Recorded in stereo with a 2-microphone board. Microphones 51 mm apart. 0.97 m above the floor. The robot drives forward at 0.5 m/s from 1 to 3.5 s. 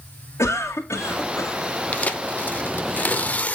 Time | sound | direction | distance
0.4 | a cough | 65° left (ahead or behind) | 2 m
1.9 | tearing paper | 25° left (ahead or behind) | 0.8 m